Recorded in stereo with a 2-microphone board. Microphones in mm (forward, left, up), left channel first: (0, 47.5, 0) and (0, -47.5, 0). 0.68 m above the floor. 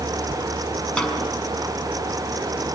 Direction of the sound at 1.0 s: 10° left (ahead or behind).